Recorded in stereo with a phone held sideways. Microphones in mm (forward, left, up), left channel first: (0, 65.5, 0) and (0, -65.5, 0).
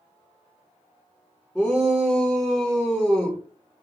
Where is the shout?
Centre (ahead or behind), 0.7 m.